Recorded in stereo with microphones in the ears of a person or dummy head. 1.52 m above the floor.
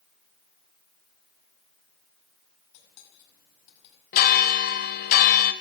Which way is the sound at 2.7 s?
65° left (ahead or behind).